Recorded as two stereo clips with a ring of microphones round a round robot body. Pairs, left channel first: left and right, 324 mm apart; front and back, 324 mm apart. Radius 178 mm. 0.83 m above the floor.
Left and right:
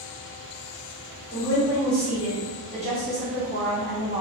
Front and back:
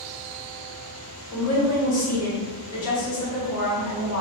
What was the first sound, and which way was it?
A woman speaking, 15° left.